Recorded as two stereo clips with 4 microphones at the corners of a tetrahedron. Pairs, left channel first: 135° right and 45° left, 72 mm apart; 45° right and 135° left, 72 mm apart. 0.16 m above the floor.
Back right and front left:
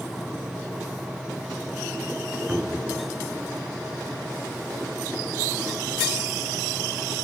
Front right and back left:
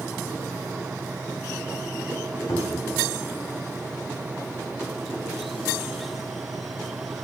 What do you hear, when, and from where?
2.5 s a cupboard door: 30° right, 1.1 m